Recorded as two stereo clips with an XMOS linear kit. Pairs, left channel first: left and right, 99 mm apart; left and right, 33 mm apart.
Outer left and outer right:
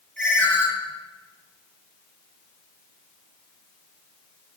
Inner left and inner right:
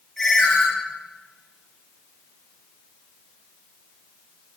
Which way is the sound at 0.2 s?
10° left (ahead or behind).